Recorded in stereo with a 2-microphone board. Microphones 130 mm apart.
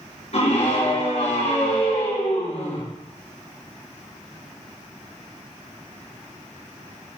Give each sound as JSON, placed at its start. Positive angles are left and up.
{"t": 0.3, "sound": "a scream", "side_deg": 60, "distance_m": 4.5}